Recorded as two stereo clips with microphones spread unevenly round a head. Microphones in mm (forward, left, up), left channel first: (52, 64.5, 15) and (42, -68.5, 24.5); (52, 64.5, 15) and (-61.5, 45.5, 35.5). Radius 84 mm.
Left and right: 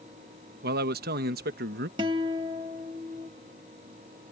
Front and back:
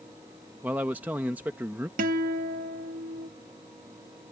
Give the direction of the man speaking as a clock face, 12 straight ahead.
3 o'clock.